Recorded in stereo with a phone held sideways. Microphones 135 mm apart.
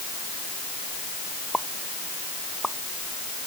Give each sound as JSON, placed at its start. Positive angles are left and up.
{"t": 1.5, "sound": "a pop", "side_deg": 5}